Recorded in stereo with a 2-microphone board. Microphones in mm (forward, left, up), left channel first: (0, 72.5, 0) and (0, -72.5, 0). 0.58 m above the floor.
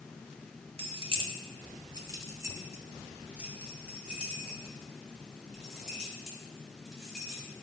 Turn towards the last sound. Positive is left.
turn(degrees=0)  # may be behind; listen again after turning